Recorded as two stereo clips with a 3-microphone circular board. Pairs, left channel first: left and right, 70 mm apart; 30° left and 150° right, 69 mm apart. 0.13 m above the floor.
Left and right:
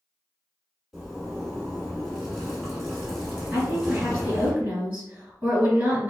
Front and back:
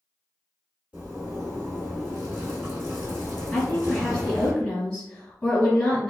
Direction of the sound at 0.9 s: 170° right.